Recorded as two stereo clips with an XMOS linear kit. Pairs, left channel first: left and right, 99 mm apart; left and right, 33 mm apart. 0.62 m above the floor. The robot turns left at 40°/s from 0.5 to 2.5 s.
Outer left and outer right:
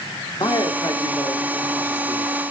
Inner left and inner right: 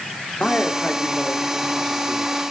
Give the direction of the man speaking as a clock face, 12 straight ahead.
9 o'clock.